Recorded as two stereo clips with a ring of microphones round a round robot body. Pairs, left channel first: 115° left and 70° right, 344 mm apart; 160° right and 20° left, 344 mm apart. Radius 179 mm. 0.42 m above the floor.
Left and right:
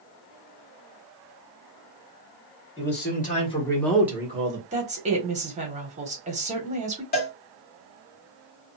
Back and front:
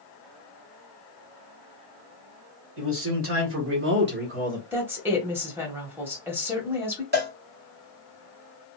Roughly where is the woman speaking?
Ahead right.